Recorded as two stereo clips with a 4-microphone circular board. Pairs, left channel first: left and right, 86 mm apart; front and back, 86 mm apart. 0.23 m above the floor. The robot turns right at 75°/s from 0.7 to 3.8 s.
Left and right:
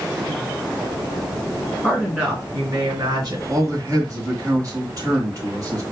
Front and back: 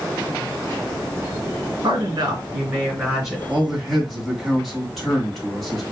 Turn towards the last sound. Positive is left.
turn(degrees=-85)